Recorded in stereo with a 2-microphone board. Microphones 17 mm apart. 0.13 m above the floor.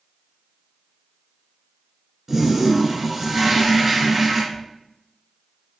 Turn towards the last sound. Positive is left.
turn(degrees=50)  # may be behind; listen again after turning